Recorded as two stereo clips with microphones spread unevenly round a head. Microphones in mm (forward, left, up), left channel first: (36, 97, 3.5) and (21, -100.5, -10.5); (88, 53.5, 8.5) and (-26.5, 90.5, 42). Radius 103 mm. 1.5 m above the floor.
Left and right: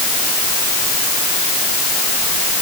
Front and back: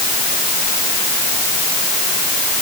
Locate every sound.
Only background noise.